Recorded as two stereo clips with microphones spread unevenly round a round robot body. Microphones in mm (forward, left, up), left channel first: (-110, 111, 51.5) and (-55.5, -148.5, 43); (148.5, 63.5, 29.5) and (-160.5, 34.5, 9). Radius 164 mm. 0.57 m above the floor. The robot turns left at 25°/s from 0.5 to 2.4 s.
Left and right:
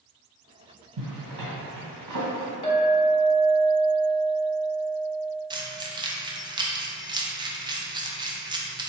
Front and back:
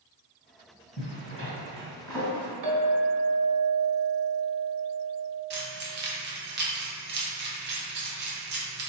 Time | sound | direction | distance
1.0 | a zipper | 55° right | 1.7 m
2.6 | a clink | 170° left | 1.3 m
5.5 | keys jangling | 145° right | 0.6 m